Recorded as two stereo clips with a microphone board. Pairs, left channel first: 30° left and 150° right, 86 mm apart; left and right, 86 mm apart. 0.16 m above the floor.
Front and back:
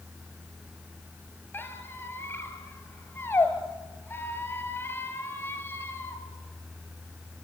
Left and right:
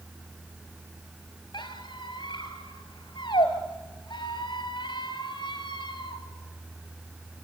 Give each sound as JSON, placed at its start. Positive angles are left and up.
{"t": 1.5, "sound": "a squeak", "azimuth_deg": 90, "distance_m": 2.5}